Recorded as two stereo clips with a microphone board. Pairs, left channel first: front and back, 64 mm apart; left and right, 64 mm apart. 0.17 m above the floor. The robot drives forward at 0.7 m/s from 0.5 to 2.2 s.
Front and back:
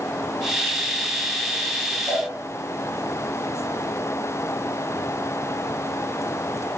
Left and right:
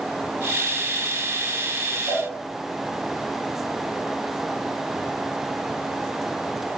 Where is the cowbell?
120° right, 4 m; by 2.2 s 125° right, 4 m.